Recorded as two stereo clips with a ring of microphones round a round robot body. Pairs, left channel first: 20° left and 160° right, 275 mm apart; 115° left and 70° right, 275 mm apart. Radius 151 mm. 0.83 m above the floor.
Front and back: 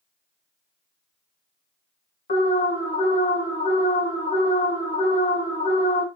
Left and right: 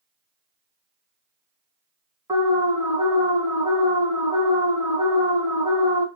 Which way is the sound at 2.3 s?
5° right.